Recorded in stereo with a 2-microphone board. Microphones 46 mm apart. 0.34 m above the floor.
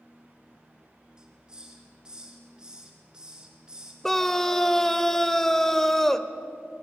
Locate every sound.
1.2 s a hiss: 15° right (ahead or behind), 2.5 m
4.0 s a scream: 10° left (ahead or behind), 0.9 m